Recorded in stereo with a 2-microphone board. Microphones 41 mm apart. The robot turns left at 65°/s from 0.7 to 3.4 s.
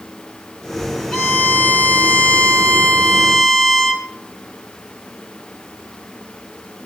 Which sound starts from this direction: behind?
A violin, at 1.1 s.